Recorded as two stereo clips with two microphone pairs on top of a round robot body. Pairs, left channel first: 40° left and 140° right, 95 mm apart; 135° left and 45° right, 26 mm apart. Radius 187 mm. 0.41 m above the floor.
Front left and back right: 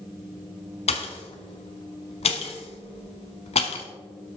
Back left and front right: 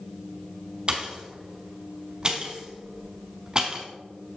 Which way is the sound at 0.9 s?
15° left.